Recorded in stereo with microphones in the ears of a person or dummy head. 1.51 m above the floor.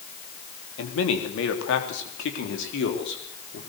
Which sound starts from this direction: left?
A man speaking, at 0.8 s.